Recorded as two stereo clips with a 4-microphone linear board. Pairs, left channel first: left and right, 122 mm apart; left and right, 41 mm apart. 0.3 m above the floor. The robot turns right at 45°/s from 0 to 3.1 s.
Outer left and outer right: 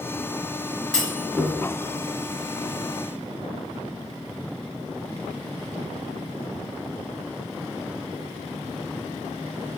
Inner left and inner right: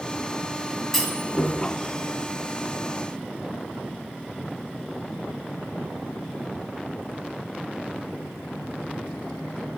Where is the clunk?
5° left (ahead or behind), 1.3 m; by 1.5 s 10° right (ahead or behind), 1.3 m.